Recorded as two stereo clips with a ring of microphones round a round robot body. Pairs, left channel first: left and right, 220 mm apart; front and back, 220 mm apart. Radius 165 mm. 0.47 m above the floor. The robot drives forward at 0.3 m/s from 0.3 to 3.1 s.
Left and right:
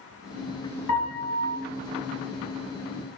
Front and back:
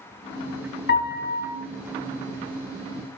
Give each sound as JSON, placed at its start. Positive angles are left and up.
{"t": 0.9, "sound": "a piano", "azimuth_deg": 35, "distance_m": 1.1}